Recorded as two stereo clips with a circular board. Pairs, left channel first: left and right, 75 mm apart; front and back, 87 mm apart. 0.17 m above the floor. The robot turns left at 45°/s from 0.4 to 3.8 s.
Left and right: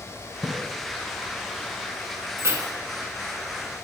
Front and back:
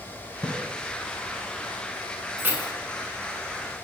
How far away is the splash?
About 0.7 m.